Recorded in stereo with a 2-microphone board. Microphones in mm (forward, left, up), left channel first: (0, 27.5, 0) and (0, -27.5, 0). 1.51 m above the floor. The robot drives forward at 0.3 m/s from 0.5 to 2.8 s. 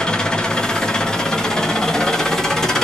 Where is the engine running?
15° left (ahead or behind), 0.8 m; by 2.9 s 10° left (ahead or behind), 1.2 m.